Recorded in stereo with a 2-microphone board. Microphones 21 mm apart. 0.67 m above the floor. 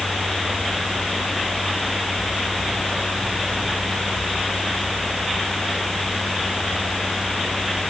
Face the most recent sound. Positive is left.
No sound to turn to.